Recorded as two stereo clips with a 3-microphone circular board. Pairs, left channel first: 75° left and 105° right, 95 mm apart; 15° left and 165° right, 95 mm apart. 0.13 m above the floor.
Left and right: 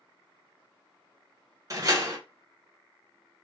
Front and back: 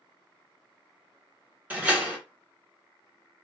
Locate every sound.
1.7 s a door slam: 100° right, 1.2 m